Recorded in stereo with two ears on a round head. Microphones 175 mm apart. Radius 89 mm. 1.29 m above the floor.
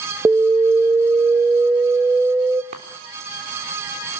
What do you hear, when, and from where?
0.2 s an alarm: 10° right (ahead or behind), 0.6 m
2.7 s a chime: 40° right (ahead or behind), 3.5 m